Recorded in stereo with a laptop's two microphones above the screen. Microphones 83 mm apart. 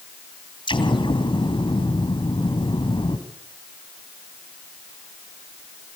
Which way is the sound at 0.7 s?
85° left.